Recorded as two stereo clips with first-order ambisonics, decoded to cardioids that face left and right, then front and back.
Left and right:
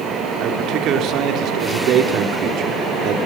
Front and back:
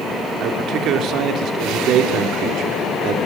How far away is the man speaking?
About 3.5 m.